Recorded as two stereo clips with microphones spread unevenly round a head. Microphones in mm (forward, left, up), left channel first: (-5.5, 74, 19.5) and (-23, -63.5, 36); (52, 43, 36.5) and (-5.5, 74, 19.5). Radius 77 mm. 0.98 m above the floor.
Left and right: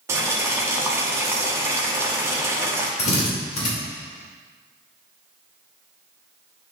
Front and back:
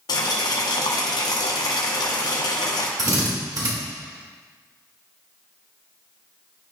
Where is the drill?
125° left, 3 m.